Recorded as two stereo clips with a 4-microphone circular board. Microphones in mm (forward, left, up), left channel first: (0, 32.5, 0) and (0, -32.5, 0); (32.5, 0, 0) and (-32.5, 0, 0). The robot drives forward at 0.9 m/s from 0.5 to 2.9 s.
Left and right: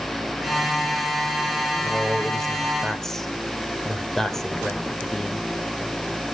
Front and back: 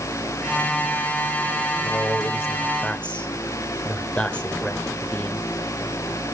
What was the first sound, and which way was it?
A man speaking, 5° left.